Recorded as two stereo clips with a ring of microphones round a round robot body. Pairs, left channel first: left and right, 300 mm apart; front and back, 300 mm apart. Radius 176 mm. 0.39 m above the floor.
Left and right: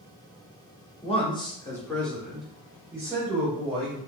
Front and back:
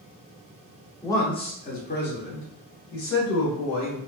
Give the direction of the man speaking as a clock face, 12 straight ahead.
10 o'clock.